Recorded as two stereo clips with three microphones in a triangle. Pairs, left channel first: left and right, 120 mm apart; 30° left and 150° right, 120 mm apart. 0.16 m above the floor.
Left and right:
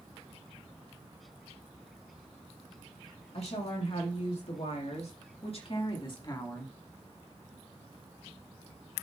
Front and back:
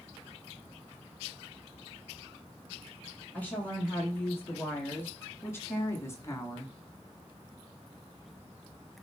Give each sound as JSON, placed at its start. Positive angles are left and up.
{"t": 3.3, "sound": "a woman speaking", "azimuth_deg": 105, "distance_m": 5.0}